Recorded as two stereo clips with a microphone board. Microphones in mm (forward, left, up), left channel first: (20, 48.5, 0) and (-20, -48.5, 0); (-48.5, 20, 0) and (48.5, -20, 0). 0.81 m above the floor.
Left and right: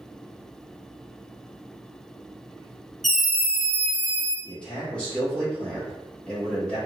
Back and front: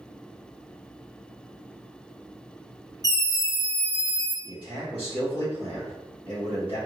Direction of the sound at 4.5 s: 145° left.